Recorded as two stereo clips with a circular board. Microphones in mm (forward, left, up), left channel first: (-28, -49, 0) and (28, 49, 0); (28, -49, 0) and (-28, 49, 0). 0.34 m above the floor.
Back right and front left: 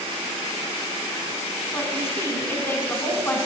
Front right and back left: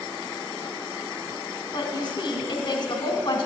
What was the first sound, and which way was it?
A woman speaking, 70° right.